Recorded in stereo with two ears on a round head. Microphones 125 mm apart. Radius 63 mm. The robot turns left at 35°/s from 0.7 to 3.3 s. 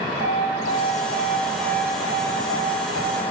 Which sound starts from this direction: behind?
An alarm, at 0.2 s.